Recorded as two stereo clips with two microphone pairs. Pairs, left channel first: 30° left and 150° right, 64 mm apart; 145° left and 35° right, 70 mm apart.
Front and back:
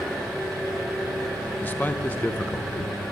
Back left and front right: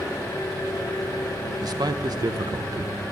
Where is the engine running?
110° left, 5.5 m.